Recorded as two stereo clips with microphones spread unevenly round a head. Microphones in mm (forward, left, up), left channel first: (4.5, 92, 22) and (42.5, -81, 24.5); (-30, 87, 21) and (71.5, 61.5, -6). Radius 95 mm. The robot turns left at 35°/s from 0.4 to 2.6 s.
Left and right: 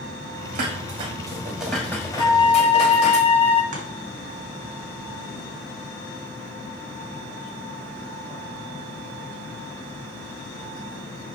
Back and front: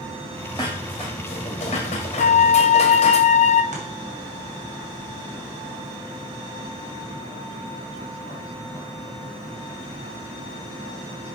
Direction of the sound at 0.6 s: 125° right.